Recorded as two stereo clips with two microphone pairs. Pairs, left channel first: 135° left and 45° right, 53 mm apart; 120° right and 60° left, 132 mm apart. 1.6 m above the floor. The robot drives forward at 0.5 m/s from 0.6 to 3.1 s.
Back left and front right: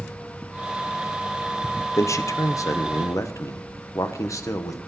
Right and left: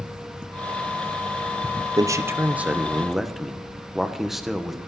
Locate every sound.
2.0 s a man speaking: 120° left, 0.7 m; by 4.8 s 150° left, 1.1 m